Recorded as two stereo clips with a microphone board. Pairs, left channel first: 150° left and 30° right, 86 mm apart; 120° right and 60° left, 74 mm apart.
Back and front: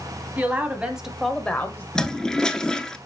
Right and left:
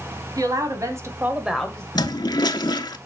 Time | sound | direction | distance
0.4 | a woman speaking | 40° left | 2.0 m
1.9 | a toilet flushing | 130° right | 0.6 m